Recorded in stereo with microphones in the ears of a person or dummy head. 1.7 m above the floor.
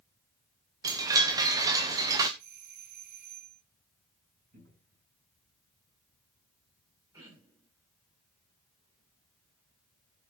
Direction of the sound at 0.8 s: 20° right (ahead or behind).